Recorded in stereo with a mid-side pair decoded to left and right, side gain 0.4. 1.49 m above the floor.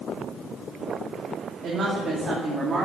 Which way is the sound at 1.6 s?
65° right.